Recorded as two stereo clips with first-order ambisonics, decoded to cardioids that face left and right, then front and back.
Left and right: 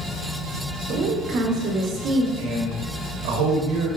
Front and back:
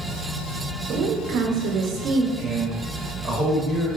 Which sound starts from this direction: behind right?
A woman speaking, at 0.9 s.